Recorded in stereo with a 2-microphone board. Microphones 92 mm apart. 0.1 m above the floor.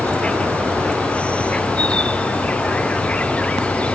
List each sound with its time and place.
0.0 s an insect: 15° left (ahead or behind)